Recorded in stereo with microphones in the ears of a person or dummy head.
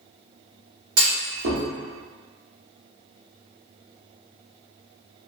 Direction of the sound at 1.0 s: 60° right (ahead or behind).